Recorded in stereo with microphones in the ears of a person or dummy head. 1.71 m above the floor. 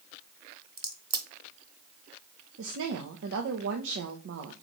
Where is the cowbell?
No cowbell in this recording.